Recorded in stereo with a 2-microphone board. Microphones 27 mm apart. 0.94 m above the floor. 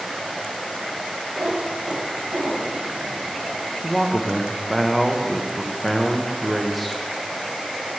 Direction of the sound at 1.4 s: 65° right (ahead or behind).